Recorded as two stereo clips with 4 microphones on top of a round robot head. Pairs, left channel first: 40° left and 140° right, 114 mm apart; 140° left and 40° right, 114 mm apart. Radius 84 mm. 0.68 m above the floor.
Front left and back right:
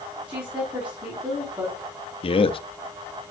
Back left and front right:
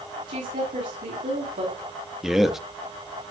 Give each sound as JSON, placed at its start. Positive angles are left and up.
{"t": 0.3, "sound": "a woman speaking", "azimuth_deg": -55, "distance_m": 4.5}
{"t": 2.2, "sound": "a man speaking", "azimuth_deg": 45, "distance_m": 1.0}